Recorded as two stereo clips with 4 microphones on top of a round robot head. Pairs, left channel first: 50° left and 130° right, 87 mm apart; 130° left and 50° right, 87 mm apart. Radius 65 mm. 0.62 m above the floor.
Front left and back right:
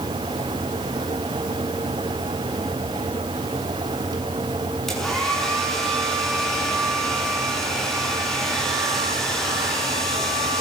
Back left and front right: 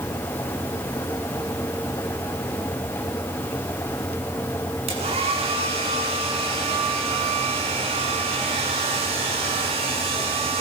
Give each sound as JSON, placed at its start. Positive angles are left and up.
{"t": 4.9, "sound": "a hair dryer", "azimuth_deg": -40, "distance_m": 7.0}